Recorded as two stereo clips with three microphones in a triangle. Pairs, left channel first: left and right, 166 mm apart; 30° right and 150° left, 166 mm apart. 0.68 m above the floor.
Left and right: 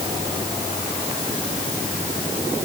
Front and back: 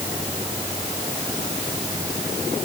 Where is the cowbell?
I don't hear a cowbell.